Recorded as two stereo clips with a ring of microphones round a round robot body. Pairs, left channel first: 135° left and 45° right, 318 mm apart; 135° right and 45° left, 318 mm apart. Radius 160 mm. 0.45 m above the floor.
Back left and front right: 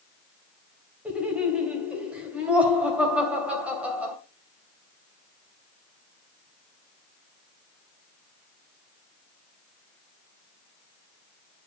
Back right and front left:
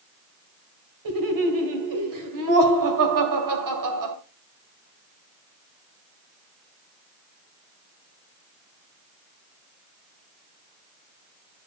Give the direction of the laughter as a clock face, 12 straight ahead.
11 o'clock.